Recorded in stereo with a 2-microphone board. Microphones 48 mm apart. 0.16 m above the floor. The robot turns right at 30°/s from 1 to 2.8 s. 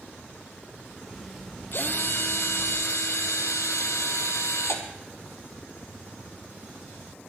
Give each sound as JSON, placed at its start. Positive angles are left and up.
{"t": 1.7, "sound": "a drill", "azimuth_deg": 50, "distance_m": 1.9}